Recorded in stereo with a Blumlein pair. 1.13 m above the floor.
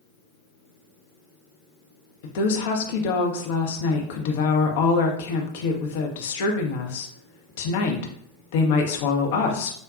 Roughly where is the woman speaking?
Ahead left.